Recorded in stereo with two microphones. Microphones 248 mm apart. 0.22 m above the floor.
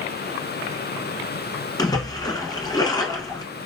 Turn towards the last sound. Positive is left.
turn(degrees=15)  # may be behind; listen again after turning